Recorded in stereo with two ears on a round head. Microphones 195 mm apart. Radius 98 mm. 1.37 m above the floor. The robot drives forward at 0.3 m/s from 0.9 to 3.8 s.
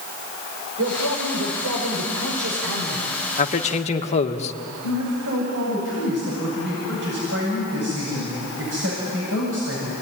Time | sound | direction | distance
0.8 | a man speaking | 80° right | 5.5 m
3.4 | a man speaking | 35° left (ahead or behind) | 1.7 m
4.8 | a man speaking | 60° right (ahead or behind) | 8.5 m